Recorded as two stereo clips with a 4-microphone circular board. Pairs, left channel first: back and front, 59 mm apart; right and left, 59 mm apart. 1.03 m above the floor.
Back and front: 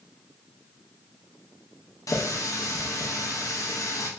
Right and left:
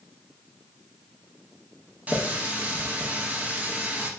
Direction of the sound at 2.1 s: 155° left.